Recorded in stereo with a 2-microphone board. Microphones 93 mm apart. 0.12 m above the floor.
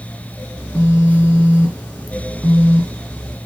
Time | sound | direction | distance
0.6 | a phone buzzing | 15° left (ahead or behind) | 1.5 m